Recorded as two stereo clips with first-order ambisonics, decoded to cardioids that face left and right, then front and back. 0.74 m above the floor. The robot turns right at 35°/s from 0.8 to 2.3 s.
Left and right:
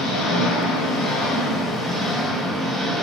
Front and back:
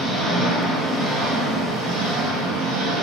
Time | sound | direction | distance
0.0 | an engine running | 120° left | 1.3 m